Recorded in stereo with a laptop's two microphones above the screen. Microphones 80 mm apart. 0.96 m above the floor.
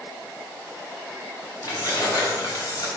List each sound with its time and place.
1.6 s keys jangling: 40° left (ahead or behind), 3 m; by 2.9 s 55° left (ahead or behind), 3 m